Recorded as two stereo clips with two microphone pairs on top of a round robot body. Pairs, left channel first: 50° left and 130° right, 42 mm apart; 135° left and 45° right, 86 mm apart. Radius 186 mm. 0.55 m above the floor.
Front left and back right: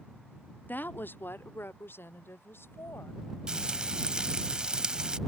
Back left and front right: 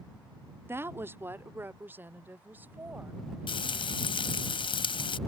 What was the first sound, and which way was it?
A woman speaking, 15° left.